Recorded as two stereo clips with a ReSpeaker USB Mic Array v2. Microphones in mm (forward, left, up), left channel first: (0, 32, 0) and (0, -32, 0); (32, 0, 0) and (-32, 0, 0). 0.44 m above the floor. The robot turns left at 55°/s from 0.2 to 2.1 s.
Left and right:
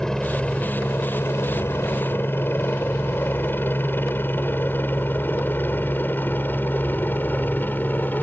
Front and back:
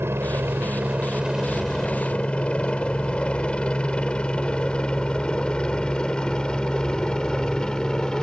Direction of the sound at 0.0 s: 165° left.